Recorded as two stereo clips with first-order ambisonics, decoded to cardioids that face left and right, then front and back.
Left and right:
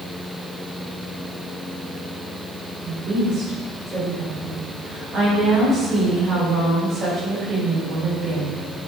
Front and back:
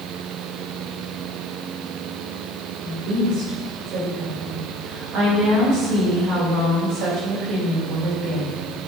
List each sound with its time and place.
2.8 s a woman speaking: 145° right, 3 m